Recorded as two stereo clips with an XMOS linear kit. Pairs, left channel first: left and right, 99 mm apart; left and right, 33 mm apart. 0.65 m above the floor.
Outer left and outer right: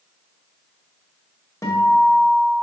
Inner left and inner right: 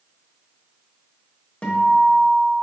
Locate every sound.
1.6 s a guitar: 35° left (ahead or behind), 0.9 m